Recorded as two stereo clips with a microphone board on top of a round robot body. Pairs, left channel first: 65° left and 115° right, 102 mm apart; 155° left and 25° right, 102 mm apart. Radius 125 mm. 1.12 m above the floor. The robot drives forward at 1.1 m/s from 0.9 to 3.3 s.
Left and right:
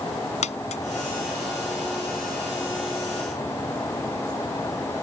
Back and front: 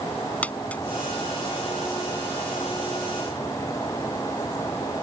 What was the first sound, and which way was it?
A dropped coin, 80° left.